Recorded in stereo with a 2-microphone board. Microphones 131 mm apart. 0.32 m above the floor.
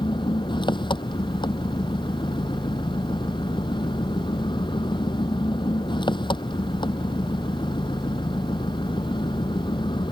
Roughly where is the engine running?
Left.